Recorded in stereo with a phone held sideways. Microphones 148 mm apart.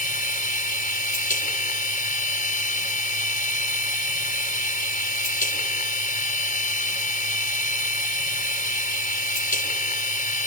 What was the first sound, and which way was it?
A machine running, 65° left (ahead or behind).